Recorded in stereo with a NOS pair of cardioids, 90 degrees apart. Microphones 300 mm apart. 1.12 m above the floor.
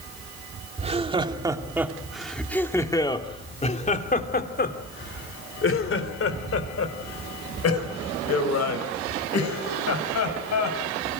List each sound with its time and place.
0.8 s laughter: 20° right, 2.5 m; by 11.2 s 65° left, 6.5 m